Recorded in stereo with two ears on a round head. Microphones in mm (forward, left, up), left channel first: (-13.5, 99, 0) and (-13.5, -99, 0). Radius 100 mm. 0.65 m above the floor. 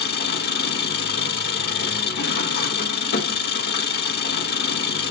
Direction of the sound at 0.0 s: 50° left (ahead or behind).